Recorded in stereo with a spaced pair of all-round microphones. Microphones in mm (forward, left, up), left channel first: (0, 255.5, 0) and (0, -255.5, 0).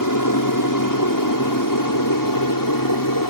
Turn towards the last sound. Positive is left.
turn(degrees=40)  # may be behind; listen again after turning